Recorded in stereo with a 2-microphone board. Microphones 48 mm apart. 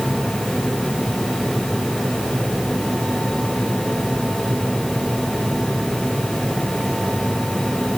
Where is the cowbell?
No cowbell in this recording.